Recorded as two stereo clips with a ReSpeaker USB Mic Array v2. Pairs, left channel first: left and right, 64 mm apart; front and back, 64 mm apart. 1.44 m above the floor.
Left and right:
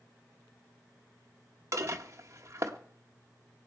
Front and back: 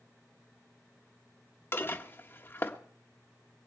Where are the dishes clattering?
50° right, 1.4 m.